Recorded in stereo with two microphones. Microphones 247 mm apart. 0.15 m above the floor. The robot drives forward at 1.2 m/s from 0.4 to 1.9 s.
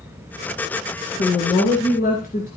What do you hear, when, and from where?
1.2 s a woman speaking: 45° left (ahead or behind), 1.4 m; by 2.5 s 35° left (ahead or behind), 1.8 m